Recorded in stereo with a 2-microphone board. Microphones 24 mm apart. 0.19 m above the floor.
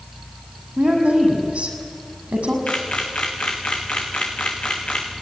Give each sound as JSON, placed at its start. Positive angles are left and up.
{"t": 0.8, "sound": "a woman speaking", "side_deg": -80, "distance_m": 6.5}
{"t": 2.7, "sound": "a camera shutter", "side_deg": 65, "distance_m": 4.0}